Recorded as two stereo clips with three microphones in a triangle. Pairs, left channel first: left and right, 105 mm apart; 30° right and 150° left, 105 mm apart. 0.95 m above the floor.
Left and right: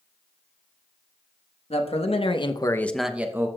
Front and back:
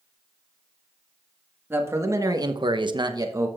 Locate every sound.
1.7 s a man speaking: 85° left, 1.5 m; by 3.5 s 150° right, 1.1 m